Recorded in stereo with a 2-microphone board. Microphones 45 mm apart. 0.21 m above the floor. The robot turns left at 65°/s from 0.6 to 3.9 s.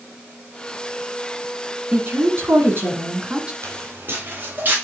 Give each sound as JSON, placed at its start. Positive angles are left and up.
{"t": 1.9, "sound": "a woman speaking", "azimuth_deg": -50, "distance_m": 1.7}
{"t": 3.6, "sound": "footsteps", "side_deg": -75, "distance_m": 3.5}